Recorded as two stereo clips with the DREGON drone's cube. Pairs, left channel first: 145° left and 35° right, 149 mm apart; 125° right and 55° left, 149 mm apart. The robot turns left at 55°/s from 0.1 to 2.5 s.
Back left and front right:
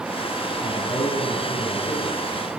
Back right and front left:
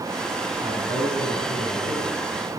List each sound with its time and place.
0.6 s a man speaking: 115° left, 7 m; by 2.6 s 10° left, 7 m